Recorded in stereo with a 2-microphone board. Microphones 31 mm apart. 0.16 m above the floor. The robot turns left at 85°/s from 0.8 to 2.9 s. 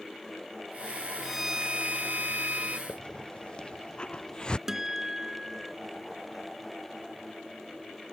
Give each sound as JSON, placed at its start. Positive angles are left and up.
{"t": 1.2, "sound": "a violin", "azimuth_deg": 0}
{"t": 2.9, "sound": "a hiss", "side_deg": 30}
{"t": 4.7, "sound": "a guitar", "side_deg": -15}